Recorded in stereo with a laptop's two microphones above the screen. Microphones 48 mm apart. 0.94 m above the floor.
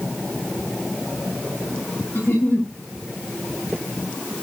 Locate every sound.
2.1 s a giggle: 55° left (ahead or behind), 1.2 m